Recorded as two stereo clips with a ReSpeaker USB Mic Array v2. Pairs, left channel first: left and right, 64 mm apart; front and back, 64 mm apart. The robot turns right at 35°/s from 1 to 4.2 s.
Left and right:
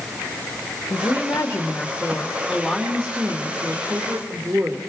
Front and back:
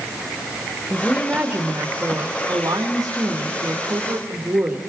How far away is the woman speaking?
About 2.5 m.